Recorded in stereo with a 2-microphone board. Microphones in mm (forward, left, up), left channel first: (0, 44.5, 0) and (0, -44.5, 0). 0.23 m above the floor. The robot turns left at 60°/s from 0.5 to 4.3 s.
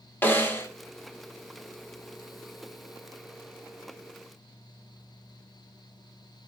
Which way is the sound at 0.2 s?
25° left (ahead or behind).